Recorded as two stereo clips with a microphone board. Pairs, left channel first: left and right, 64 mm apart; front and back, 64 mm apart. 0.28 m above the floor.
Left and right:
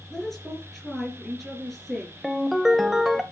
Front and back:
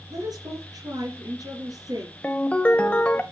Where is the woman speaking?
Straight behind, 4 m.